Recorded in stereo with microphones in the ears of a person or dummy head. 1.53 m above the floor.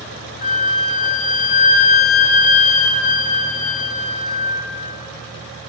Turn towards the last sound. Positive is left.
turn(degrees=45)  # may be behind; listen again after turning